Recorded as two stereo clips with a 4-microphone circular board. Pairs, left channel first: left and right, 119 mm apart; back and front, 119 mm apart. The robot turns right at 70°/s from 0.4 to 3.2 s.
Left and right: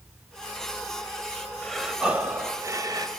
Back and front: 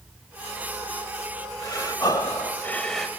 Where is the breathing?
170° left, 1.3 m; by 3.1 s 90° right, 1.3 m.